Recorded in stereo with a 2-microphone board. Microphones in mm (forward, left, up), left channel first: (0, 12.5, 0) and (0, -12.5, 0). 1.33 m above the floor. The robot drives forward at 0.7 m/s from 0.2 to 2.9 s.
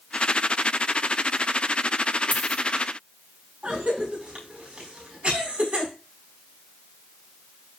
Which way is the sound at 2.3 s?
80° left.